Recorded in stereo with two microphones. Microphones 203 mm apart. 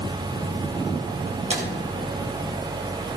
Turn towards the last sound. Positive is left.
turn(degrees=-35)  # may be behind; listen again after turning